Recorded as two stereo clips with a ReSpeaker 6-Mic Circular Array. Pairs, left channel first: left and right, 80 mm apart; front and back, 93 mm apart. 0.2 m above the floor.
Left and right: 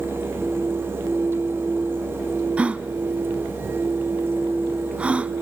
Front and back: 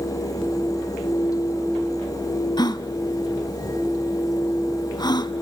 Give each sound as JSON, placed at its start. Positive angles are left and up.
{"t": 2.6, "sound": "a gasp", "azimuth_deg": -20, "distance_m": 0.6}